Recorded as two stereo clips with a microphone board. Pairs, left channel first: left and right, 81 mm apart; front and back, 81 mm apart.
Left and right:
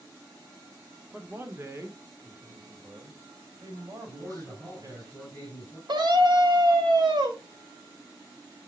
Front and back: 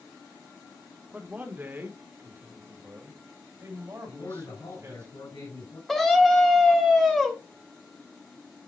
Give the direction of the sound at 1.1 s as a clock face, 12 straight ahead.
4 o'clock.